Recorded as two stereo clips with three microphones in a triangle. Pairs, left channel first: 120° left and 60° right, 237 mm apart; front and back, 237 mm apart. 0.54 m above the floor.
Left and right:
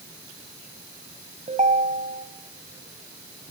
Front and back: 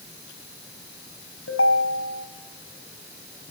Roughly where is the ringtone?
Ahead.